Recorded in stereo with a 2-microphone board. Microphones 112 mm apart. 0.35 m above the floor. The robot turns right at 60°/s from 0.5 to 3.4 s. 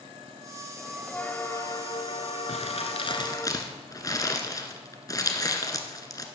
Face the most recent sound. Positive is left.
turn(degrees=35)  # may be behind; listen again after turning